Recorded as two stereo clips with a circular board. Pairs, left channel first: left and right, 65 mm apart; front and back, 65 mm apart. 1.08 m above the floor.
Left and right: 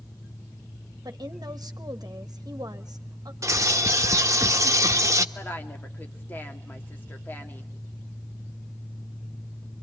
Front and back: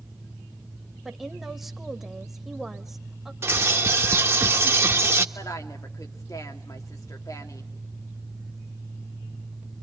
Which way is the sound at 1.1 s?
95° right.